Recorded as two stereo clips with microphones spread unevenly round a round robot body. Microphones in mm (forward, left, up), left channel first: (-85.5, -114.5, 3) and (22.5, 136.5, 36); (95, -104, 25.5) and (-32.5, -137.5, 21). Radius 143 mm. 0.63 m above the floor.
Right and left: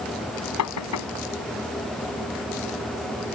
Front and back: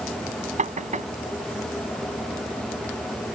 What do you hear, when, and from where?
0.6 s knocking: 140° right